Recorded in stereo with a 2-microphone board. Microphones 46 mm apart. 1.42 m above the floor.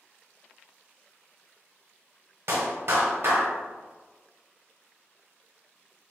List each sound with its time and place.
2.5 s a clap: 65° right (ahead or behind), 1.0 m